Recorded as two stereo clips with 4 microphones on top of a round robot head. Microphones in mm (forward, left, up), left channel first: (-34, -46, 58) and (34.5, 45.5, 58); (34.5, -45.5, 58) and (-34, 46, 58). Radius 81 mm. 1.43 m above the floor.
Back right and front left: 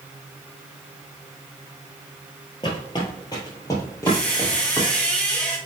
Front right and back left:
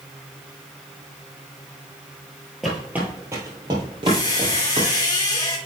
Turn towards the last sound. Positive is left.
turn(degrees=-55)